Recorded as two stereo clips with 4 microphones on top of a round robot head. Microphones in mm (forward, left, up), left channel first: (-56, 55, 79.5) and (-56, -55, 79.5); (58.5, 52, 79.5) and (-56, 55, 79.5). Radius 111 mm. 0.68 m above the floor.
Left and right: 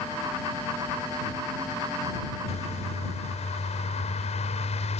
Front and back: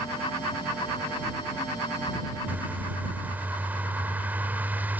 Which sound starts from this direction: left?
A bird, at 2.5 s.